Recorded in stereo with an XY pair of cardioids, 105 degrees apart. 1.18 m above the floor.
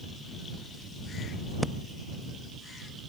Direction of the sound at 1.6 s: Straight ahead.